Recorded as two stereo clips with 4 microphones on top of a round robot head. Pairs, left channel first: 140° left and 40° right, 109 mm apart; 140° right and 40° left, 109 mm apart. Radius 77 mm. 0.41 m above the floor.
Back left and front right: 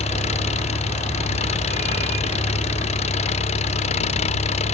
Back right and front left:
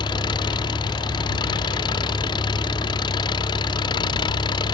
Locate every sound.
0.0 s an engine running: 170° left